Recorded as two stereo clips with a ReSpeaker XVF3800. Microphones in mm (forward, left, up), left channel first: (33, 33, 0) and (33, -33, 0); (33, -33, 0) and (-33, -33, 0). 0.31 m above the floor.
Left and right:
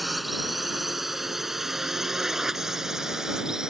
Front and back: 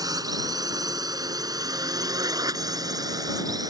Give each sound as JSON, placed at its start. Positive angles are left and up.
{"t": 0.0, "sound": "a drone", "azimuth_deg": 180}